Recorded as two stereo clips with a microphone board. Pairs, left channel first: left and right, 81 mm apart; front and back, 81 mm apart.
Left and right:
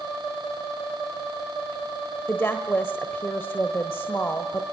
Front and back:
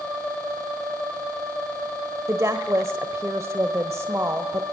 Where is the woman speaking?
140° left, 1.3 m.